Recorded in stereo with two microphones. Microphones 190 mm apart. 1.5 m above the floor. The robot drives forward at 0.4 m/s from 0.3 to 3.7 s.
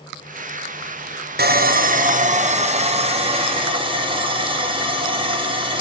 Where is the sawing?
55° right (ahead or behind), 0.8 m; by 5.8 s 25° right (ahead or behind), 1.5 m.